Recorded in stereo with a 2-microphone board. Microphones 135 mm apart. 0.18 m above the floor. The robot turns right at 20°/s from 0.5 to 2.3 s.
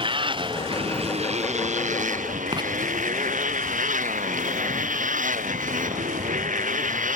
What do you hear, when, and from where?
0.0 s a motorcycle: 140° right; by 7.2 s 105° right
2.5 s writing: 35° right (ahead or behind)